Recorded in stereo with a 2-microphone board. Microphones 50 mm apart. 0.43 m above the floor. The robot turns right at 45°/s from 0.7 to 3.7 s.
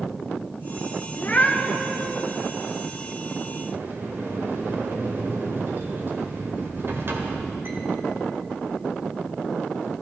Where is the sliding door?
55° right (ahead or behind), 1.4 m.